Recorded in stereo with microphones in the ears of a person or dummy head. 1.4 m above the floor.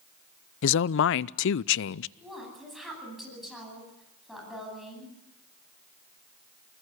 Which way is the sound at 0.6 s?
65° left (ahead or behind).